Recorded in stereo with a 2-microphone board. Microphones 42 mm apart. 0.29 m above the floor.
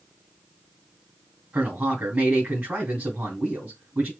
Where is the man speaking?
45° right (ahead or behind), 2.5 m.